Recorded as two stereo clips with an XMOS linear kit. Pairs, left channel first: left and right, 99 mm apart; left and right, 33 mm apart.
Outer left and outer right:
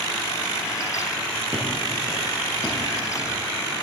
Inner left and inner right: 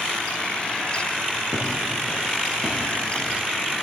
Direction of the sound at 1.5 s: 10° right (ahead or behind).